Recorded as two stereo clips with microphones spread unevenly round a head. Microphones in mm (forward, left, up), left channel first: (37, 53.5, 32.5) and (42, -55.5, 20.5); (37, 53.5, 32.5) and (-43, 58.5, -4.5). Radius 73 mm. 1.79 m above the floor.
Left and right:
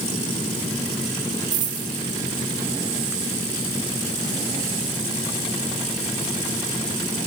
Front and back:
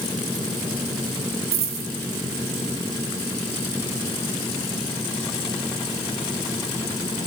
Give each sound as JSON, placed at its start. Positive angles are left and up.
{"t": 1.5, "sound": "a dropped coin", "azimuth_deg": -150, "distance_m": 3.0}